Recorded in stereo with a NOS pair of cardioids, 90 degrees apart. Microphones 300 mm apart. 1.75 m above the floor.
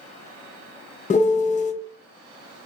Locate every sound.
1.1 s a piano: 25° left, 0.5 m